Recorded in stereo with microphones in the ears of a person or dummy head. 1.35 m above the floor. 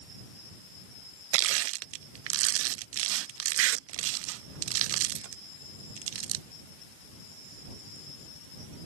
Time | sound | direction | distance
1.3 | crushing | 65° right (ahead or behind) | ?